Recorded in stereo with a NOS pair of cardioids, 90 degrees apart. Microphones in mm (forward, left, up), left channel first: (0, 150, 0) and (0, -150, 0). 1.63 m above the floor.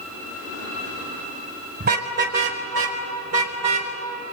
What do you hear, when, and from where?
1.8 s a car horn: 35° right, 4 m; by 3.9 s 65° right, 5 m